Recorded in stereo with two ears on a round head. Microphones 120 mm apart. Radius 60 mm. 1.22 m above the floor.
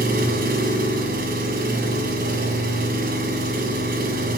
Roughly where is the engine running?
Right.